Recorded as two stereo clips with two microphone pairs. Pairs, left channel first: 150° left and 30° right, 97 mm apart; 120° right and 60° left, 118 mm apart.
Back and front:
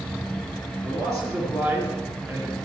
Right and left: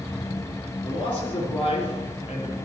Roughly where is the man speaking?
Right.